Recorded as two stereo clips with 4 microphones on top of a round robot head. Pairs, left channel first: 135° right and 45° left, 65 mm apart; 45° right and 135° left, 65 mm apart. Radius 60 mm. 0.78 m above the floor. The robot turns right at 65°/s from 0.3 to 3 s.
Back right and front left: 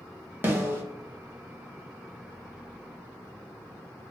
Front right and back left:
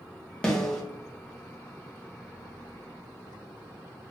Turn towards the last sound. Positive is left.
turn(degrees=-175)